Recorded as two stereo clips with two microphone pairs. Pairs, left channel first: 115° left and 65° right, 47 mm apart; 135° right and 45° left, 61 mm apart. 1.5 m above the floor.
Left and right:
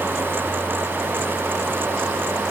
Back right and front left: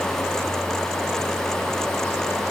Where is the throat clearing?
No throat clearing in this recording.